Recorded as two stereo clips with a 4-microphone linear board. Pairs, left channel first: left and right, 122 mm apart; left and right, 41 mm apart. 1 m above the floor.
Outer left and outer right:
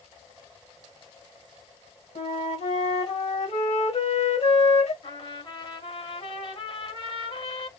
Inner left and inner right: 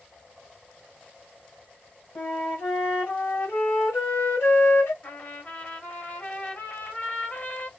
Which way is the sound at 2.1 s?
60° left (ahead or behind).